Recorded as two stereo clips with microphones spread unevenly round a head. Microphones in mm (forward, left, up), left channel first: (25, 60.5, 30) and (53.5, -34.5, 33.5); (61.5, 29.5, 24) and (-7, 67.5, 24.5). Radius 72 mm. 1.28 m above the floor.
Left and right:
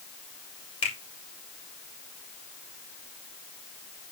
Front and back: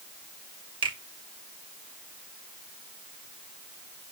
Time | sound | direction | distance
0.8 | a finger snap | 150° left | 2.5 m